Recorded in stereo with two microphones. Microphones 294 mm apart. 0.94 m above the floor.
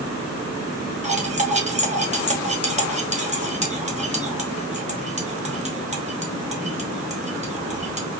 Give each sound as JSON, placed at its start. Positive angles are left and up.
{"t": 1.0, "sound": "cutlery clinking", "side_deg": -25, "distance_m": 1.0}